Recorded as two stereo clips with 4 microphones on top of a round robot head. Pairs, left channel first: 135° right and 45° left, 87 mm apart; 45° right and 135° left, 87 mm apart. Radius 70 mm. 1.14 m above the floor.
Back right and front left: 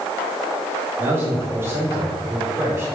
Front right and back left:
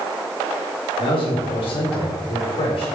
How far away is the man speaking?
About 3.5 m.